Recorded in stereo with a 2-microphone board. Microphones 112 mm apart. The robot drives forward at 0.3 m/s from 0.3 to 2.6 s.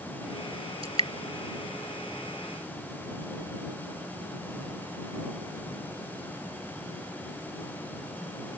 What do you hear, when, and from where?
0.8 s dripping: 60° right (ahead or behind); by 1.1 s 55° right (ahead or behind)